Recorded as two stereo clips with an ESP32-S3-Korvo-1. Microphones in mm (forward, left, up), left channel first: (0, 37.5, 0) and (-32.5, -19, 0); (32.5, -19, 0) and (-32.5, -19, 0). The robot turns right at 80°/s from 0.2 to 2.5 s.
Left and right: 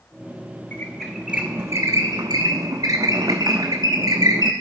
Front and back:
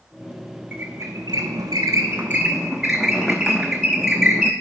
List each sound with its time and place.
0.7 s a squeak: 120° left, 0.8 m; by 4.5 s 95° right, 0.8 m